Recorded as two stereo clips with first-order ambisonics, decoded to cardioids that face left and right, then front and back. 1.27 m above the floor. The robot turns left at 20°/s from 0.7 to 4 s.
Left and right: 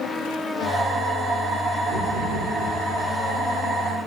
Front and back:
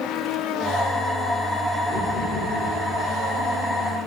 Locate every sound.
1.9 s knocking: 80° right, 3 m; by 2.7 s 95° right, 3 m